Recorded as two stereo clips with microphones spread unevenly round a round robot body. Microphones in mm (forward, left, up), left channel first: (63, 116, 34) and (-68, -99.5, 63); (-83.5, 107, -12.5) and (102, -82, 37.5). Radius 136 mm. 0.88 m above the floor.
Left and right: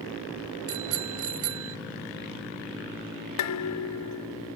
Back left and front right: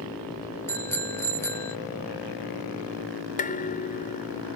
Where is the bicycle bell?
145° right.